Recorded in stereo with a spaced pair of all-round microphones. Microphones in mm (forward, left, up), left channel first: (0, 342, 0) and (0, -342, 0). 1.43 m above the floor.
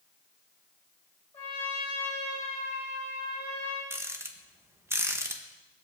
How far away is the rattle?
About 1.3 m.